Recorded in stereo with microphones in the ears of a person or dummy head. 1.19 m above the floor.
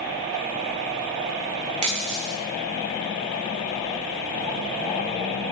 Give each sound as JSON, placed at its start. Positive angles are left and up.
{"t": 1.8, "sound": "a dropped coin", "side_deg": -35, "distance_m": 2.5}